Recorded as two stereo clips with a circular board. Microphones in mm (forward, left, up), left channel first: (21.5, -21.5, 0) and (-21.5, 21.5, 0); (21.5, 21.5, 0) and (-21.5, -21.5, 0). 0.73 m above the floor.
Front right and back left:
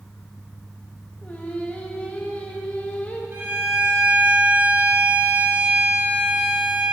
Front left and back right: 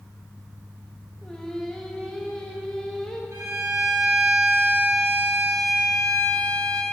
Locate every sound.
1.2 s singing: 20° right, 0.8 m
3.3 s a violin: 175° right, 2.5 m